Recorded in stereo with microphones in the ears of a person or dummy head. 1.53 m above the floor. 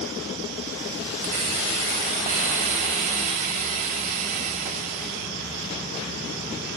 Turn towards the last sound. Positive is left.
turn(degrees=-40)  # may be behind; listen again after turning